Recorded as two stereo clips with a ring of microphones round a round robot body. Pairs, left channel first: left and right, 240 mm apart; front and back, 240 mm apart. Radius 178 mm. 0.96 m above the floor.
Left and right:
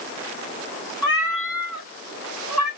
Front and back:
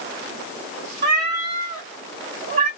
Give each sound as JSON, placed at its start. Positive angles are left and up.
{"t": 1.0, "sound": "a cat meowing", "azimuth_deg": 165, "distance_m": 2.5}